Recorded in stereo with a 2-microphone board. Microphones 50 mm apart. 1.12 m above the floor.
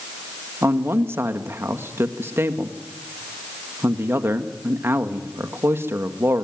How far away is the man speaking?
About 1.8 m.